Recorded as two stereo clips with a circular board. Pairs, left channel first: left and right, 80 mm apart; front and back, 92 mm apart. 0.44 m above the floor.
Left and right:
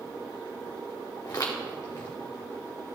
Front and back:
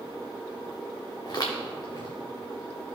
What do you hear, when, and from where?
1.2 s footsteps: 45° left, 2 m